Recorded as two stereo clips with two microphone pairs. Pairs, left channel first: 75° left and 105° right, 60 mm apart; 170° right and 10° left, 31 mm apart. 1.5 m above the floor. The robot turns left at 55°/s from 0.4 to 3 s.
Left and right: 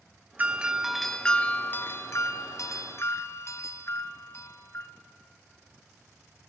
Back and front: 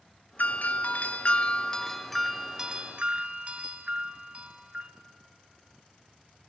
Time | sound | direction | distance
0.4 | a doorbell | 165° right | 0.9 m